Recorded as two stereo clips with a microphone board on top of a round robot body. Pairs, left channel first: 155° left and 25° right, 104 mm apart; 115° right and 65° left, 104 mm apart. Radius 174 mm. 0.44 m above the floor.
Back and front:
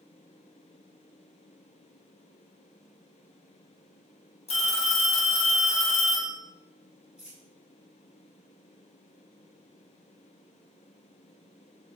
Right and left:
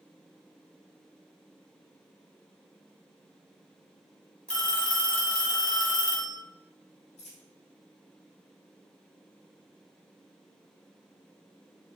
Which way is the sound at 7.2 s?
105° right.